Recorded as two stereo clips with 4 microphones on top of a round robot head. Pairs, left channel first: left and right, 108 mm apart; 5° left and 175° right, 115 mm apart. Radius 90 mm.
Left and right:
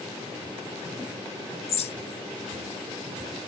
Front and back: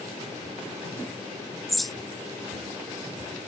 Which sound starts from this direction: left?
A bird, at 1.7 s.